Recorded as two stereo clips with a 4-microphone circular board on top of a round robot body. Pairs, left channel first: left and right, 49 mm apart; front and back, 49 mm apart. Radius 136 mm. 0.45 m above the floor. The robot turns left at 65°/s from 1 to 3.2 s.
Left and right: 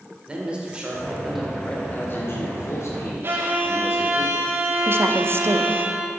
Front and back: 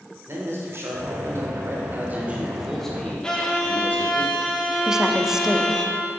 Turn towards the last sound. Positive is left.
turn(degrees=-105)